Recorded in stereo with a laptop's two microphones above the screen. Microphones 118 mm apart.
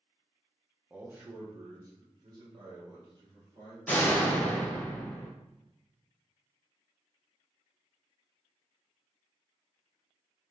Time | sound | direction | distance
0.9 | a man speaking | 10° right (ahead or behind) | 0.6 m
3.9 | a door slam | 15° left (ahead or behind) | 0.5 m